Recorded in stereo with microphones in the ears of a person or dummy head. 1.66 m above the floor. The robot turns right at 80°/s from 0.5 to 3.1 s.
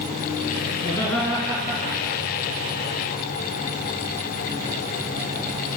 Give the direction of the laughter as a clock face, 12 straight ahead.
7 o'clock.